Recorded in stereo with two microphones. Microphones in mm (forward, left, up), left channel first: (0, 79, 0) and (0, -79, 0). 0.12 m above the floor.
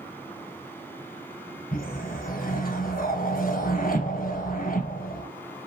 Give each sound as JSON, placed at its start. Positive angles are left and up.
{"t": 1.7, "sound": "a whoosh", "side_deg": 65, "distance_m": 0.9}